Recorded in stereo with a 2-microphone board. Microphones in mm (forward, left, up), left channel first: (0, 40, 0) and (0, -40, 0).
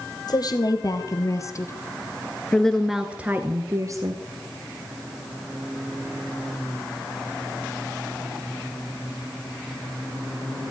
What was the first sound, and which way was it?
A woman speaking, 55° left (ahead or behind).